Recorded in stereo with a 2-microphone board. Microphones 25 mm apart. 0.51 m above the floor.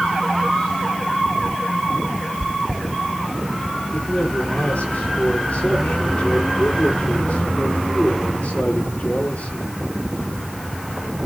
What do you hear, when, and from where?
2.4 s chewing: 20° left (ahead or behind), 1.6 m
3.9 s a man speaking: 80° left, 9.5 m